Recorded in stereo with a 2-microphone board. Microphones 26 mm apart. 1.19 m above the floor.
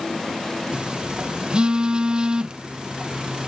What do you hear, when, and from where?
0.7 s a phone buzzing: 40° right (ahead or behind), 0.5 m